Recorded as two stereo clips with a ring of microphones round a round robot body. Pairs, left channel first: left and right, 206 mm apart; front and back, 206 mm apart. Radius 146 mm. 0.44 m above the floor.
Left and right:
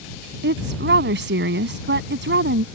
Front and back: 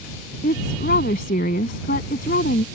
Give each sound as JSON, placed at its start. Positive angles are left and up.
{"t": 0.4, "sound": "a woman speaking", "azimuth_deg": -60}